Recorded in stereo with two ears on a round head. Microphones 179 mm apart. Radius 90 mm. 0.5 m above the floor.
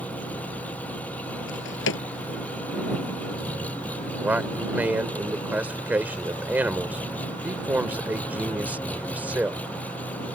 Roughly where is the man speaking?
Centre.